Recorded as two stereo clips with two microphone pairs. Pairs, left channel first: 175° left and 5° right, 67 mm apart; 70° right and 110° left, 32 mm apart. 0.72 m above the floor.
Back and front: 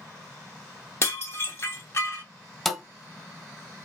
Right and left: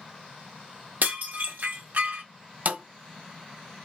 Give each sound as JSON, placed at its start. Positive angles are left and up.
{"t": 1.0, "sound": "dishes clattering", "azimuth_deg": 125, "distance_m": 1.3}
{"t": 2.6, "sound": "a thud", "azimuth_deg": 85, "distance_m": 0.8}